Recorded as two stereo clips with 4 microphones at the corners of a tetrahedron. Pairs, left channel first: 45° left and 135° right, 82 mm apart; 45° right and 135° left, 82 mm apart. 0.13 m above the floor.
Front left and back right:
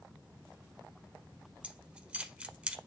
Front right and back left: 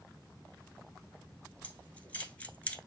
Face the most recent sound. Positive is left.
turn(degrees=-85)